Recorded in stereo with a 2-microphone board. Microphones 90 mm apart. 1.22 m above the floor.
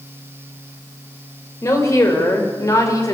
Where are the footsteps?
No footsteps in this recording.